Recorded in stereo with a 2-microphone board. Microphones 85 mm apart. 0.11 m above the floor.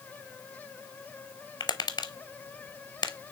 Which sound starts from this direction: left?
Tapping, at 1.6 s.